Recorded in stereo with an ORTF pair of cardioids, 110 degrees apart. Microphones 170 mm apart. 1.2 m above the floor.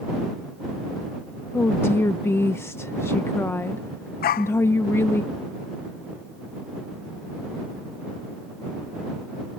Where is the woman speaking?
15° left.